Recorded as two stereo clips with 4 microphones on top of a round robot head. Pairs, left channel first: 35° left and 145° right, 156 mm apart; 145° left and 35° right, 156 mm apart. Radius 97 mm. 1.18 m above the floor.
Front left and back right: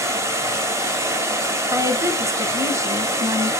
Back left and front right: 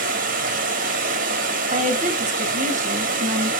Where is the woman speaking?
75° right, 1.7 m.